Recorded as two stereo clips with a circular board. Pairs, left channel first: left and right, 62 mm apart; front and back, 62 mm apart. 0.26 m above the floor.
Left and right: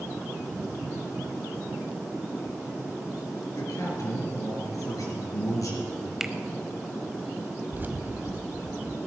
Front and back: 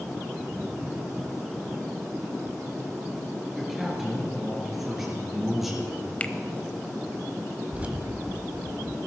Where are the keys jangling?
125° right, 1.0 m.